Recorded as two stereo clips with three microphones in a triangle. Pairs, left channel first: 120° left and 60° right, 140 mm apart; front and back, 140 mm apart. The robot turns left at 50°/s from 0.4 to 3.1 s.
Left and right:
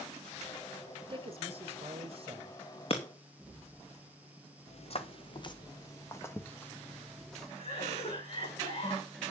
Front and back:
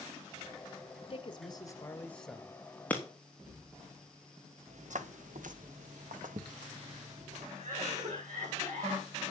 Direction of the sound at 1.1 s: 25° right.